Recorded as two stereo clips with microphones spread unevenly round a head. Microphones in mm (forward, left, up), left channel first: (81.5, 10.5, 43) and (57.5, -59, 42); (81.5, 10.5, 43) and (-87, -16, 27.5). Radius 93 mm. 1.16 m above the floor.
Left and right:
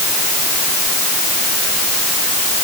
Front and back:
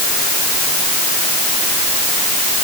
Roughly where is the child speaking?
No child speaking in this recording.